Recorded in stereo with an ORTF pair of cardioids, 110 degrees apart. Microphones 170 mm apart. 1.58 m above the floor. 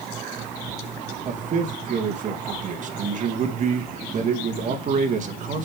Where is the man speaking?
45° right, 2 m.